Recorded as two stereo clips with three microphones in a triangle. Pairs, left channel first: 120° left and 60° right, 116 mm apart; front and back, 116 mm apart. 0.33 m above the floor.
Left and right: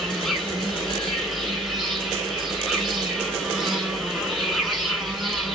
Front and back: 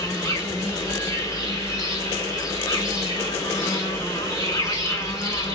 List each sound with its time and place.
0.0 s an insect: 30° left, 2.5 m